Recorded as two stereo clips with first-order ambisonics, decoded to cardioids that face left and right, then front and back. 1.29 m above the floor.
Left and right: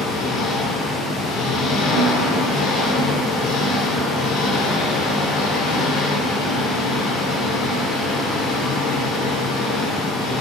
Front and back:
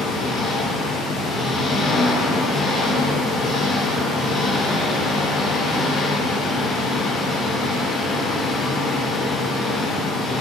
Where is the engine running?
60° left, 3 m.